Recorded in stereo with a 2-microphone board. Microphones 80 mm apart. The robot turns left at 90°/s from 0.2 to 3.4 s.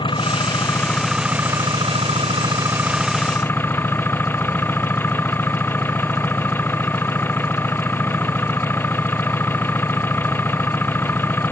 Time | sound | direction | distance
0.0 | an engine running | 85° left | ?